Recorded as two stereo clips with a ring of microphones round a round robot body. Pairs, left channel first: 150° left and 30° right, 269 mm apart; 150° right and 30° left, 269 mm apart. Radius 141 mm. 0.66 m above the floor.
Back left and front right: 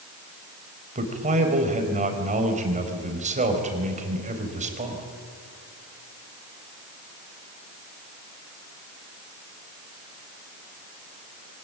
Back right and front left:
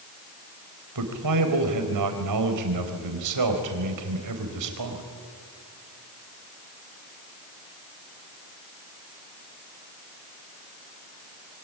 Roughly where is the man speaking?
Ahead left.